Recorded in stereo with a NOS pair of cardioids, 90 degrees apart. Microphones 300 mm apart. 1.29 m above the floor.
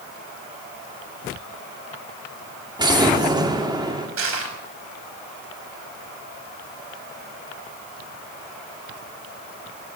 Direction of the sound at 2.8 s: 15° right.